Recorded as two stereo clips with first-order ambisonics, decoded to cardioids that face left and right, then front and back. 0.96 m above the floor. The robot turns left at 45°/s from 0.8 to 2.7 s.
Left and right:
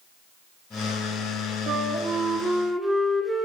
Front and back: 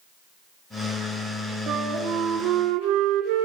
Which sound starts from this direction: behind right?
A flute, at 1.7 s.